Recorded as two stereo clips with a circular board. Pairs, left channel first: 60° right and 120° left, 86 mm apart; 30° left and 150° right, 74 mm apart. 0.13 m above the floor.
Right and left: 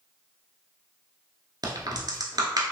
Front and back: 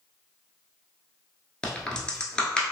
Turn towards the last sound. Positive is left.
turn(degrees=105)